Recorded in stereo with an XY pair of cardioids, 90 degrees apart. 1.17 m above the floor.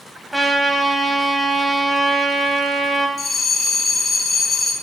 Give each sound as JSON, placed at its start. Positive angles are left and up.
{"t": 0.3, "sound": "a trumpet", "azimuth_deg": -10, "distance_m": 3.5}
{"t": 3.2, "sound": "a bell", "azimuth_deg": 30, "distance_m": 3.5}